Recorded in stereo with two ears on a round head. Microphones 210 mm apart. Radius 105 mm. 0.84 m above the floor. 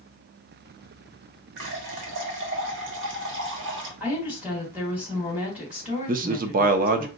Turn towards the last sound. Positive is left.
turn(degrees=-35)  # may be behind; listen again after turning